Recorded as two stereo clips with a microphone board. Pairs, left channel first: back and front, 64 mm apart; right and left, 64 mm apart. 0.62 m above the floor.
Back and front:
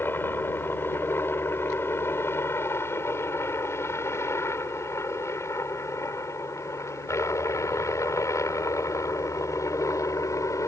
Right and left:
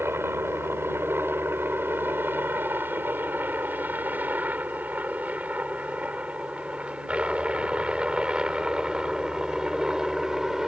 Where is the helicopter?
135° left; by 10.7 s 170° left.